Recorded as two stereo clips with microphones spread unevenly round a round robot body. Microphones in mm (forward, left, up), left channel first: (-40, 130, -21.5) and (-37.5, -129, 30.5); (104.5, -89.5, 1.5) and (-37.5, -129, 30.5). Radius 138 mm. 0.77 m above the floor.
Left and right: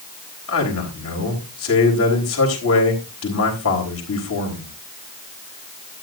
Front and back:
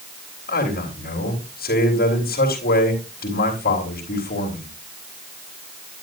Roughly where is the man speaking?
Ahead left.